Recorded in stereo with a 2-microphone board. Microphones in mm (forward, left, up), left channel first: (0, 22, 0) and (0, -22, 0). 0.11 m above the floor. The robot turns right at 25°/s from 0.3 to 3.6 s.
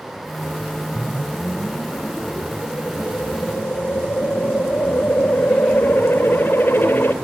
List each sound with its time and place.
0.9 s a whoosh: 50° left, 1.9 m; by 7.1 s 115° left, 1.9 m